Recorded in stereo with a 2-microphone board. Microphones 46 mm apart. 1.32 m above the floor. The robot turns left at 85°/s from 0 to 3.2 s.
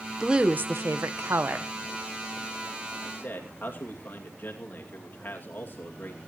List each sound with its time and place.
0.2 s a woman speaking: 10° right, 1.2 m; by 1.7 s 135° right, 1.2 m
3.0 s a man speaking: 60° left (ahead or behind), 2.5 m; by 6.2 s 45° left (ahead or behind), 2.5 m